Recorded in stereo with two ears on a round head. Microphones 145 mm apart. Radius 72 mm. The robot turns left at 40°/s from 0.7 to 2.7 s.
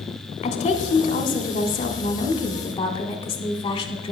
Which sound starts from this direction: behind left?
A woman speaking, at 0.4 s.